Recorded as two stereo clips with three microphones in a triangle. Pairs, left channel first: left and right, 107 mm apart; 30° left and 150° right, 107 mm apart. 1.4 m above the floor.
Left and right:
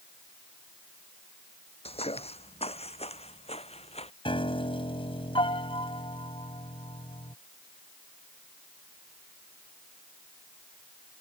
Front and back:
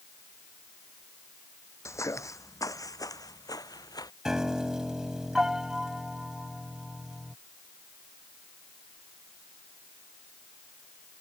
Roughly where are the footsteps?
Left.